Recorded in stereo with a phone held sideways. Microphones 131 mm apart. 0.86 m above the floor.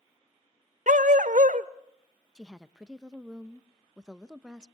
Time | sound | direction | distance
0.9 | a dog barking | 75° right (ahead or behind) | 1.1 m
2.4 | a woman speaking | 5° right (ahead or behind) | 0.8 m